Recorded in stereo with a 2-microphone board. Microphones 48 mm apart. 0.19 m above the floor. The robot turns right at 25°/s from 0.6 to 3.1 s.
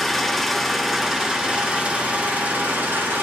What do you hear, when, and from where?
0.0 s an engine running: straight behind, 2.5 m; by 3.2 s 115° right, 2.5 m